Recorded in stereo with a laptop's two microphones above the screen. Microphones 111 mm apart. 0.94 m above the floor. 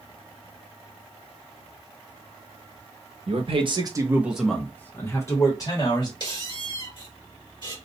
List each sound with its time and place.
3.3 s a man speaking: 65° right (ahead or behind), 0.8 m; by 6.1 s 40° left (ahead or behind), 1.6 m
6.2 s a squeak: 45° left (ahead or behind), 1.4 m